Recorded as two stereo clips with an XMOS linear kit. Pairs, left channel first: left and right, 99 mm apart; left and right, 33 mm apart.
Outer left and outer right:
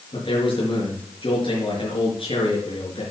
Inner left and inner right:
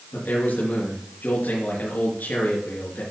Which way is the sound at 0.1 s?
60° left (ahead or behind).